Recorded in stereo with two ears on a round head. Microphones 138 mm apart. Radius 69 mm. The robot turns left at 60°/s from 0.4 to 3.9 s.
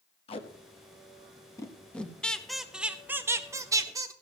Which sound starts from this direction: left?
Tape being pulled, at 0.3 s.